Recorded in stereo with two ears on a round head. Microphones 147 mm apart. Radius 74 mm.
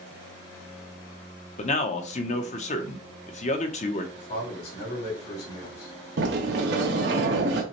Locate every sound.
1.6 s a man speaking: 40° left (ahead or behind), 0.7 m
4.2 s a man speaking: 55° left (ahead or behind), 2.5 m
6.2 s a sliding door: 65° right (ahead or behind), 1.0 m